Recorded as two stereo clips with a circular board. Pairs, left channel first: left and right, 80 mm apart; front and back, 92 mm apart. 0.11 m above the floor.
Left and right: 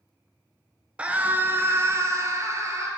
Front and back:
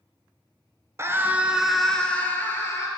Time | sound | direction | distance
1.0 | a scream | 155° right | 1.3 m